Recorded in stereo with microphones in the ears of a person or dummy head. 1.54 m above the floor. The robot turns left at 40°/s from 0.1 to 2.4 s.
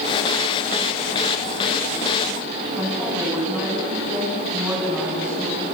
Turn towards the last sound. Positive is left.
turn(degrees=-5)  # may be behind; listen again after turning